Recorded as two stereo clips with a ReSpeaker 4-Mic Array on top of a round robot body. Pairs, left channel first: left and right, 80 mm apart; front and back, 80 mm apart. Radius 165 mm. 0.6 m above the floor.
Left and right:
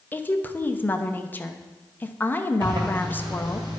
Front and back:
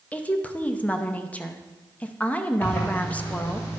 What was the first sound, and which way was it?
A woman speaking, 55° left.